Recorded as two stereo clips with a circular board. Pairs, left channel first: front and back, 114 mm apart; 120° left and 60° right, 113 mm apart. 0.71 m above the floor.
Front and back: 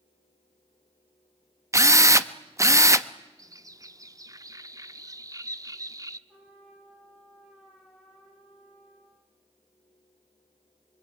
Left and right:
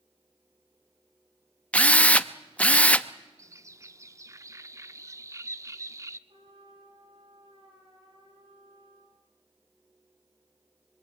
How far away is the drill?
About 0.8 m.